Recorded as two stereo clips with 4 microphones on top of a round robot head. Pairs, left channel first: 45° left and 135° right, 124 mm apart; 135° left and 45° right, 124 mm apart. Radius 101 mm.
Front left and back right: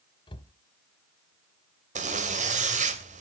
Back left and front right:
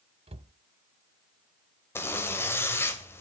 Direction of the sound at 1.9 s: 155° right.